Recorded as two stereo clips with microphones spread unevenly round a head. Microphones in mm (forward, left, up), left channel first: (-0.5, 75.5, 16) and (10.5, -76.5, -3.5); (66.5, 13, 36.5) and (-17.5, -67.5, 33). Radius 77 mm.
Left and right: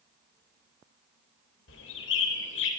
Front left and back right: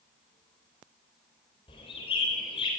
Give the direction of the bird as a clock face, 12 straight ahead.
9 o'clock.